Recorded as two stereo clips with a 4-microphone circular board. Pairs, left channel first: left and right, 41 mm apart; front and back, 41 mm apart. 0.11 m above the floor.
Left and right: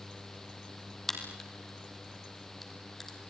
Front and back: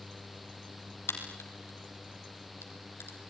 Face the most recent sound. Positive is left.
turn(degrees=5)